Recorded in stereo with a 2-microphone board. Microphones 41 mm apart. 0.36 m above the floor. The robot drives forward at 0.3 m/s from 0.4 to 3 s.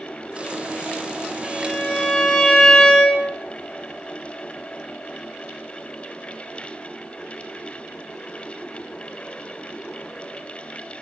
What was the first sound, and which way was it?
A violin, 25° left (ahead or behind).